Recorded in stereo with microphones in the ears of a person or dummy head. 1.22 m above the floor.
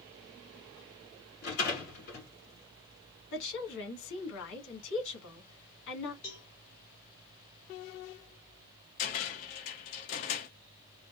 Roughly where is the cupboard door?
Left.